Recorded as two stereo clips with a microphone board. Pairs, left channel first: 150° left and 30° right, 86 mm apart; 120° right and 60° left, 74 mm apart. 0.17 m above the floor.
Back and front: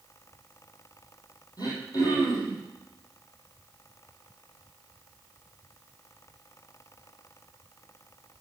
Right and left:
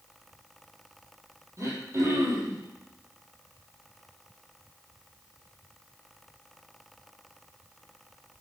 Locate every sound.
1.6 s throat clearing: 110° left, 5 m